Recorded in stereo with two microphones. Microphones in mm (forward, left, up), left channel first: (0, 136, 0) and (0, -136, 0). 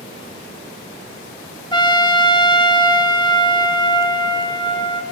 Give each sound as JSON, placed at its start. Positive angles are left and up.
{"t": 1.7, "sound": "a trumpet", "side_deg": 15, "distance_m": 0.6}